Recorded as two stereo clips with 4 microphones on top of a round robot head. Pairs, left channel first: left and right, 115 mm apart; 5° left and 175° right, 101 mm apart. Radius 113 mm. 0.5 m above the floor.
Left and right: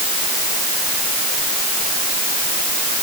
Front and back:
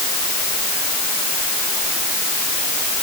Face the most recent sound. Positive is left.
No sound to turn to.